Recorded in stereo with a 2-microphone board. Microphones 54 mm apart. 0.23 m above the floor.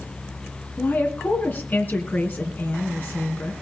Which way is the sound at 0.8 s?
35° left (ahead or behind).